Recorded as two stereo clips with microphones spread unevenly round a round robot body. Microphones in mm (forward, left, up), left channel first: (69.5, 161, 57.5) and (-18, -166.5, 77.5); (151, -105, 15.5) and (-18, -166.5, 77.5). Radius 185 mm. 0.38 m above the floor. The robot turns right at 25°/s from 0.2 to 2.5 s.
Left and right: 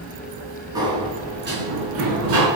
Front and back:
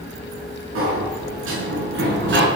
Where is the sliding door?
175° left, 6 m; by 2.5 s 140° right, 6 m.